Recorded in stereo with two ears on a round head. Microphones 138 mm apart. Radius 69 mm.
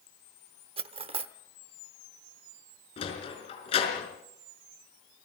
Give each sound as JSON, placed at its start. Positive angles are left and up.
{"t": 0.8, "sound": "cutlery clinking", "side_deg": -35, "distance_m": 0.8}
{"t": 3.0, "sound": "a sliding door", "side_deg": 40, "distance_m": 4.5}